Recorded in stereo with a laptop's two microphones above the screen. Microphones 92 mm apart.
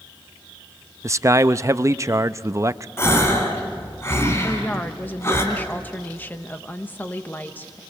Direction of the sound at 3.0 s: 30° left (ahead or behind).